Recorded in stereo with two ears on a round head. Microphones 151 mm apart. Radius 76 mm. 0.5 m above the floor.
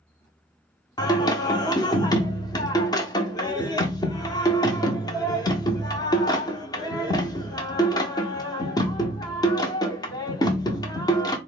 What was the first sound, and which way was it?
Singing, 25° left (ahead or behind).